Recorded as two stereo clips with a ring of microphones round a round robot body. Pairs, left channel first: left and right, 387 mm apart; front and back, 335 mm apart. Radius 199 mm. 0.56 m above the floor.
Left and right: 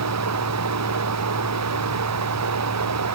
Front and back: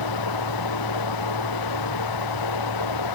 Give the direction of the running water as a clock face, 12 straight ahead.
1 o'clock.